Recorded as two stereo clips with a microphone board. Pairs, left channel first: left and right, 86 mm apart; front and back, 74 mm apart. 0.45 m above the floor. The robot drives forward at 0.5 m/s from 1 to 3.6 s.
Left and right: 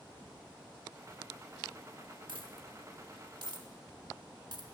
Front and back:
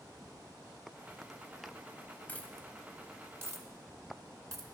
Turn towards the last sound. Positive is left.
turn(degrees=-130)